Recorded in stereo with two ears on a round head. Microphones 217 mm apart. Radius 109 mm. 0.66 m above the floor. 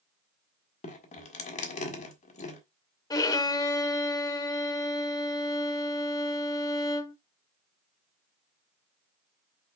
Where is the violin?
15° left (ahead or behind), 0.7 m.